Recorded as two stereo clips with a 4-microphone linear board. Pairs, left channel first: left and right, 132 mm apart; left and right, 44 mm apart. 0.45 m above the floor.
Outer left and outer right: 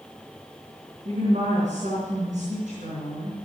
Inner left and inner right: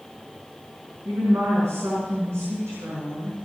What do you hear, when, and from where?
1.1 s a woman speaking: 80° right, 5 m